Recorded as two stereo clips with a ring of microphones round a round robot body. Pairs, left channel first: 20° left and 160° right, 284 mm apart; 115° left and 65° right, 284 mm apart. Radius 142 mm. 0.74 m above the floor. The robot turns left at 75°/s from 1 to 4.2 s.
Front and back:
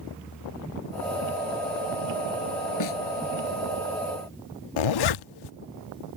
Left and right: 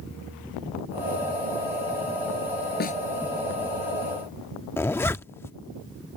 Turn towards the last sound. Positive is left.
turn(degrees=30)